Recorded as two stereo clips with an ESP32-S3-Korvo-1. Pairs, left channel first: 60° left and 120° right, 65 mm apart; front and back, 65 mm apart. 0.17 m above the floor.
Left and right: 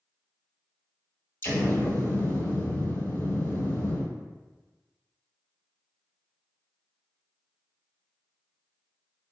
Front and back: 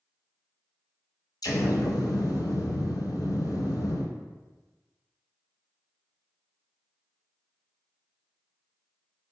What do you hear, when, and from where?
1.4 s an explosion: 10° left, 0.7 m